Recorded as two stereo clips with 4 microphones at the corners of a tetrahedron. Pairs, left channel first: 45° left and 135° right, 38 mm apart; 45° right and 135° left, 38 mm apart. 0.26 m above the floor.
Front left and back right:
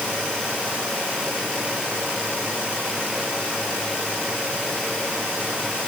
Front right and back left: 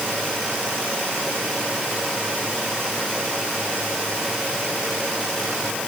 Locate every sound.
Only background noise.